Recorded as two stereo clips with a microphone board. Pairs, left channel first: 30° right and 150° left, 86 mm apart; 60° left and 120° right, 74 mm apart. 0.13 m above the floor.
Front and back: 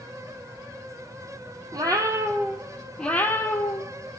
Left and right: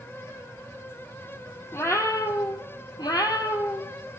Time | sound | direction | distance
1.7 | a cat meowing | 115° left | 1.2 m